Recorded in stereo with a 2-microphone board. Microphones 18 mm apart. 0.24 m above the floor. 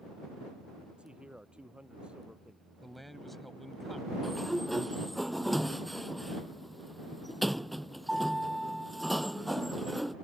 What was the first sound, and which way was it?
A man speaking, 80° right.